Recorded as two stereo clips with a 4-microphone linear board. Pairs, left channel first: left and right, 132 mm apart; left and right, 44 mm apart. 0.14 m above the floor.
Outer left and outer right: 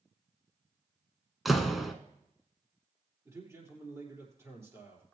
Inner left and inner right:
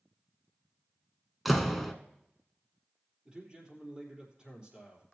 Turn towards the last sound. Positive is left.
turn(degrees=-20)  # may be behind; listen again after turning